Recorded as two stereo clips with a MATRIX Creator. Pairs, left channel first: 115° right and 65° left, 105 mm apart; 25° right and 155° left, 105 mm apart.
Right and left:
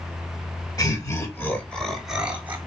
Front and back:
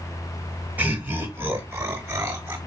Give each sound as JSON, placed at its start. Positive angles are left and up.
{"t": 0.8, "sound": "laughter", "azimuth_deg": -135, "distance_m": 1.3}